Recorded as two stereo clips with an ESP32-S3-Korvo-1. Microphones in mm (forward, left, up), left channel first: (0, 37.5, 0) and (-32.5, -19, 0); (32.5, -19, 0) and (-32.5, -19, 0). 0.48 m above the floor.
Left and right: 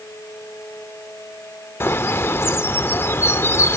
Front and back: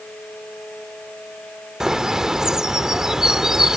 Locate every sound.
1.8 s a bird: 100° left